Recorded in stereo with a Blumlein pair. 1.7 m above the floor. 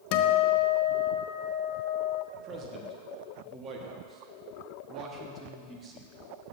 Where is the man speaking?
25° right, 1.2 m.